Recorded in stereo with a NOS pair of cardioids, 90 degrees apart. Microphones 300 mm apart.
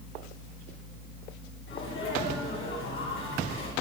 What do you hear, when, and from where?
1.7 s a sneeze: 40° left, 9.5 m